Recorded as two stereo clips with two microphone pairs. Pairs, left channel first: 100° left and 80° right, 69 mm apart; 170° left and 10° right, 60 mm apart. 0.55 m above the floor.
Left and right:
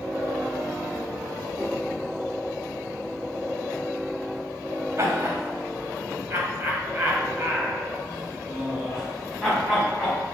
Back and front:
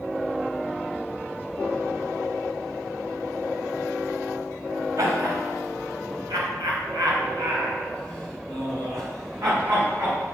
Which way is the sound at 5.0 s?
30° right.